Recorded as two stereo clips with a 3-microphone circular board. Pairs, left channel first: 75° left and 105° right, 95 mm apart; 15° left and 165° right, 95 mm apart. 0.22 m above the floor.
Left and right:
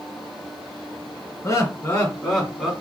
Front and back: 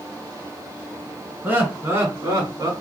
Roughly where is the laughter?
Behind left.